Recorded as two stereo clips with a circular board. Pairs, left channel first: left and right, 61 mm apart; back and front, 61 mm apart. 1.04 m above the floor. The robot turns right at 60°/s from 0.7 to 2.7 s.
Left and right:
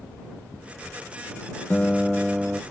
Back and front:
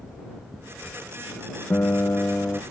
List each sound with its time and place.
1.7 s a guitar: 160° left; by 2.6 s 145° right